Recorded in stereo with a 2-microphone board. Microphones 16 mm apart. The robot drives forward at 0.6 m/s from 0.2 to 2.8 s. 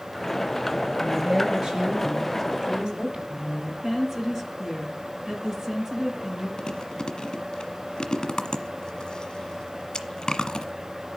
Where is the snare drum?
No snare drum in this recording.